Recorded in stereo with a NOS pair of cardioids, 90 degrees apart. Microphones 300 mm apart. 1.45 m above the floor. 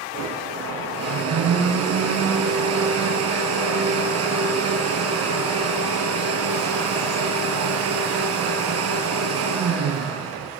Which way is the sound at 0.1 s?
60° right.